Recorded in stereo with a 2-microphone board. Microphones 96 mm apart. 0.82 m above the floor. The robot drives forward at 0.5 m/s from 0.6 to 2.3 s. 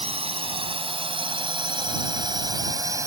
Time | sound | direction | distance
0.0 | a drone | 80° right | ?